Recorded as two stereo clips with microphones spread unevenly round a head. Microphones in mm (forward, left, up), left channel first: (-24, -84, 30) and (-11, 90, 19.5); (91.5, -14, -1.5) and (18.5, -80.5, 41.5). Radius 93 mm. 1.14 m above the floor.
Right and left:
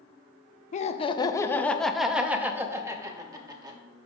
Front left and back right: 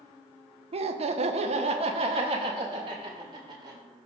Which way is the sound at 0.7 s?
120° right.